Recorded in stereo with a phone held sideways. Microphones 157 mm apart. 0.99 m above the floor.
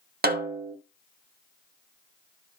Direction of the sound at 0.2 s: 85° right.